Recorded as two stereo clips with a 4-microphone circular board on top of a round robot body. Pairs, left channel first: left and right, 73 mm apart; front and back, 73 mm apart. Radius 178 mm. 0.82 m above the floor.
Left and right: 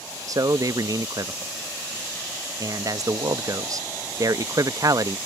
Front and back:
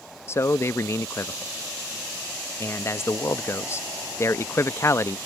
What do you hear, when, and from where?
0.3 s a man speaking: 55° right